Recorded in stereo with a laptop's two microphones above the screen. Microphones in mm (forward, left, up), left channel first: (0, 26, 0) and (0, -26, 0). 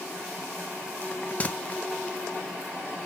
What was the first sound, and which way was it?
A bell, 25° left (ahead or behind).